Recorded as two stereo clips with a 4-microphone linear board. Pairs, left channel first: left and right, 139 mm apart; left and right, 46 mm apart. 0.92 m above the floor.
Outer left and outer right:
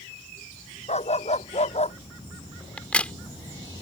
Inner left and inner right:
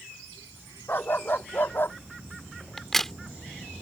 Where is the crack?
10° left (ahead or behind).